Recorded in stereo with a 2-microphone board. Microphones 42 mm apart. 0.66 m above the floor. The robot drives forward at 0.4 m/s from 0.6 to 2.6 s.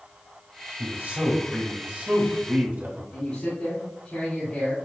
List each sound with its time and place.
0.8 s a man speaking: 50° right (ahead or behind), 1.8 m; by 3.0 s 40° right (ahead or behind), 2 m
3.1 s a man speaking: 40° left (ahead or behind), 2.5 m